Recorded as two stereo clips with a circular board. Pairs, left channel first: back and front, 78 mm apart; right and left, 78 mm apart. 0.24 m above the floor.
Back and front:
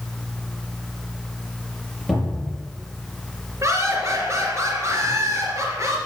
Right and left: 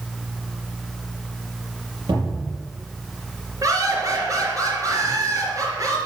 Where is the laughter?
50° left, 4 m.